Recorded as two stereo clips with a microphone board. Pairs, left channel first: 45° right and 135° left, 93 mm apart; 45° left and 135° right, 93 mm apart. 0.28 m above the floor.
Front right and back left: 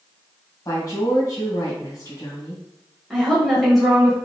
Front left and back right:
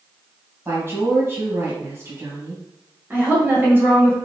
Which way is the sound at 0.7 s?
80° right.